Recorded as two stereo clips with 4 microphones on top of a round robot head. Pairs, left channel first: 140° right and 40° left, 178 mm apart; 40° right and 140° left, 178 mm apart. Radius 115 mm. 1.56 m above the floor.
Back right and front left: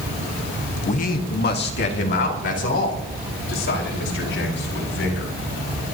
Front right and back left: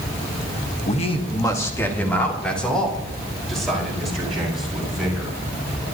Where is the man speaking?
90° right, 1.1 m; by 5.3 s 130° right, 7.5 m.